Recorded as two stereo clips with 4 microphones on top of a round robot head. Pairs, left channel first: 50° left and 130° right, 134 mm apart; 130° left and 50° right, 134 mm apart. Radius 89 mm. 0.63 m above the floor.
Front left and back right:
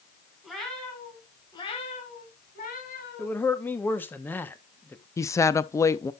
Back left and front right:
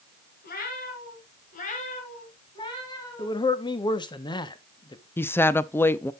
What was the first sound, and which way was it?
A cat meowing, 140° left.